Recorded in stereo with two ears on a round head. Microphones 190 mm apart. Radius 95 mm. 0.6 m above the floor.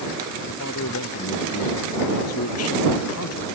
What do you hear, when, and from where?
0.5 s a man speaking: 70° left (ahead or behind); by 3.5 s 85° left